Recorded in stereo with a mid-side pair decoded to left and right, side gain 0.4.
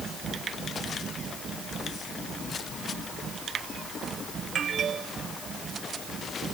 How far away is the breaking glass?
No breaking glass in this recording.